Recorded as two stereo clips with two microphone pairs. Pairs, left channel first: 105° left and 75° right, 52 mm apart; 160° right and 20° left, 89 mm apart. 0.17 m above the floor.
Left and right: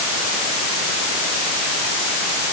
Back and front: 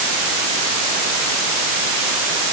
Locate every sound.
Only background noise.